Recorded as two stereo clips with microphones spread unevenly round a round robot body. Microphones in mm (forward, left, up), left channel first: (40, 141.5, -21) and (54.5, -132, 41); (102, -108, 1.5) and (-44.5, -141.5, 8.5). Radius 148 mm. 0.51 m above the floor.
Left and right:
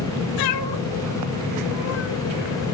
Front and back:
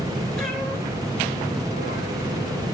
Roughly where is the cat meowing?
Left.